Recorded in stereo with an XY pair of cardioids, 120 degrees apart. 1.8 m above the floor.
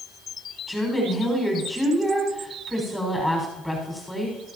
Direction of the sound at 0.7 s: Straight ahead.